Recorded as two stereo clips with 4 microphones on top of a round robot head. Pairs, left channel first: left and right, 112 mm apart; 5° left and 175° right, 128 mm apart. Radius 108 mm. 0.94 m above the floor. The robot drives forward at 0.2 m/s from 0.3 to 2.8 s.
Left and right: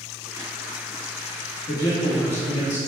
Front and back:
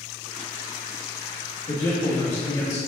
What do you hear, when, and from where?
1.7 s a man speaking: 70° left, 1.4 m; by 2.8 s 80° left, 1.4 m